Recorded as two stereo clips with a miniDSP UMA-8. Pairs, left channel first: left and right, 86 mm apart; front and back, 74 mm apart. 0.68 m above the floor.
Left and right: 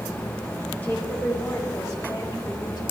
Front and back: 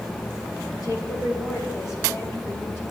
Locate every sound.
0.8 s a woman speaking: 20° left, 4 m; by 2.8 s 55° left, 5 m